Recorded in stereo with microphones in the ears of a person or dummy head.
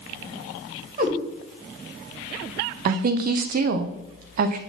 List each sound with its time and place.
1.0 s a cat meowing: 45° right (ahead or behind), 2.5 m
2.9 s a woman speaking: 55° right (ahead or behind), 0.6 m